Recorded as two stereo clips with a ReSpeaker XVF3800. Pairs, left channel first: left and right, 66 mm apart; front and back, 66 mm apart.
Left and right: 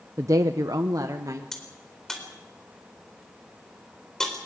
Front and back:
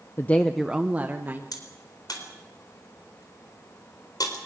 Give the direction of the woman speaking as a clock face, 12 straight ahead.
2 o'clock.